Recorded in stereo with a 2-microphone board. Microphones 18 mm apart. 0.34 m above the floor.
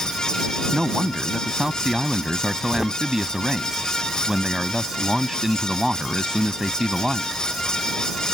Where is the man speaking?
30° right (ahead or behind).